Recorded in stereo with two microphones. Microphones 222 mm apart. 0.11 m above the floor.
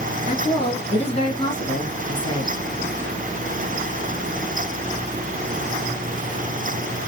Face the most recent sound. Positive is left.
turn(degrees=30)  # may be behind; listen again after turning